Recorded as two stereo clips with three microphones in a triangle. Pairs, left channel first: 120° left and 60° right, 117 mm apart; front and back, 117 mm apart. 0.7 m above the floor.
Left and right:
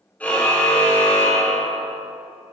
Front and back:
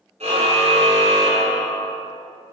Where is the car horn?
165° right, 7 m; by 1.9 s 170° right, 8.5 m.